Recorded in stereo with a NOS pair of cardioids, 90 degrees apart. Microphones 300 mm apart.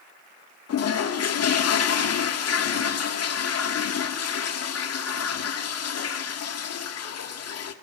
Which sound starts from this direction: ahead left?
A toilet flushing, at 0.7 s.